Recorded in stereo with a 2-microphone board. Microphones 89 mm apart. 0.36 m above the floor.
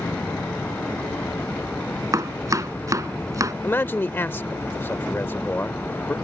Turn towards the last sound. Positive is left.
turn(degrees=25)  # may be behind; listen again after turning